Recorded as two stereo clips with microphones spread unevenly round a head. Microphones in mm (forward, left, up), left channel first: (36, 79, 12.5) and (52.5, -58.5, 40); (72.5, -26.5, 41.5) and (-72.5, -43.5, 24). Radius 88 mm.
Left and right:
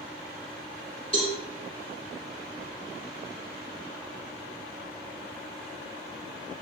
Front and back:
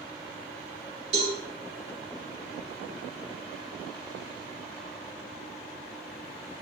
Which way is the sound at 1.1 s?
160° left.